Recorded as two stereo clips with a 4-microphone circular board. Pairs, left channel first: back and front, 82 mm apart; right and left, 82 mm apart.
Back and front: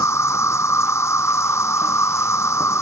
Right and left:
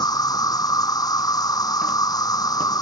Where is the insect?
125° right.